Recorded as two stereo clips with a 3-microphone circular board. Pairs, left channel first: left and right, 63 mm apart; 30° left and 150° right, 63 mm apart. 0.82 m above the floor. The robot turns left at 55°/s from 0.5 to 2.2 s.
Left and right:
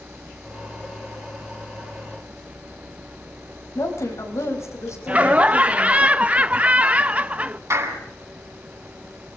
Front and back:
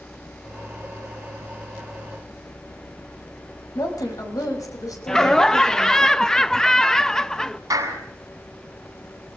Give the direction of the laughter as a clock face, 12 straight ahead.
1 o'clock.